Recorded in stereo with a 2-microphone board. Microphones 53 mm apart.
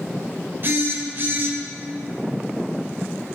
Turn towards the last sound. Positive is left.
turn(degrees=-45)  # may be behind; listen again after turning